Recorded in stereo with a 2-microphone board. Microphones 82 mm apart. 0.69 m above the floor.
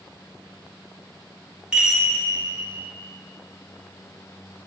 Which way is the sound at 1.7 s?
10° right (ahead or behind).